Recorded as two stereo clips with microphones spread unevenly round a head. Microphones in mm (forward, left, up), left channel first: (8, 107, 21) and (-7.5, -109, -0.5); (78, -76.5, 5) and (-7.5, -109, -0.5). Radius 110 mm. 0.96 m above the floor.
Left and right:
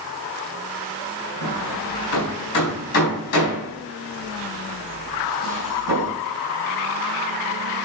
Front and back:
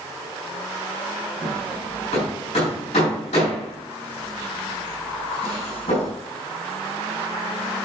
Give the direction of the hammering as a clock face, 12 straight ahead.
9 o'clock.